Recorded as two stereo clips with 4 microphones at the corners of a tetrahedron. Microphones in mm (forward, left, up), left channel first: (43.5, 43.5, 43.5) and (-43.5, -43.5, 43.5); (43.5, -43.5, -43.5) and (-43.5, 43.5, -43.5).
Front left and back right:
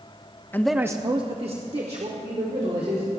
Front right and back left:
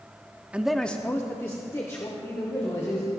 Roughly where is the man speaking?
Left.